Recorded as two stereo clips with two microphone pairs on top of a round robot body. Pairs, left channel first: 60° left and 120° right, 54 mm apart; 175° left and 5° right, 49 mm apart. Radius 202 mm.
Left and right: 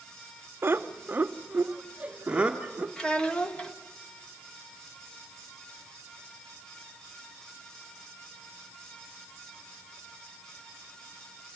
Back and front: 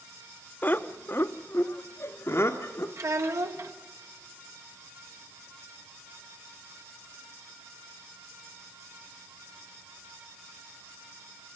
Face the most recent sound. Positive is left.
turn(degrees=-15)